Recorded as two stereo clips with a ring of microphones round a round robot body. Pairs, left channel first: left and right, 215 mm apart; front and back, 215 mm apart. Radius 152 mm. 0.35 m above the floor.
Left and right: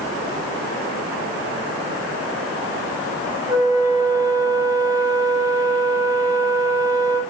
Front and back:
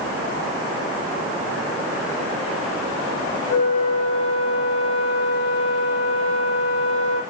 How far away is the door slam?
I don't hear a door slam.